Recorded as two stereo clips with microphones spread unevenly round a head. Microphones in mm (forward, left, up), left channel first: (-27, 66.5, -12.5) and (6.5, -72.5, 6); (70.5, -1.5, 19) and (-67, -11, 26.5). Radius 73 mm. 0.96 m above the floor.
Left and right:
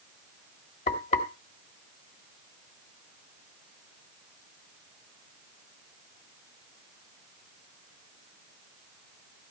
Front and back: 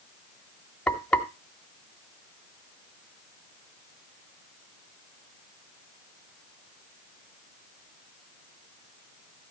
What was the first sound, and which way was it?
Frying, 85° left.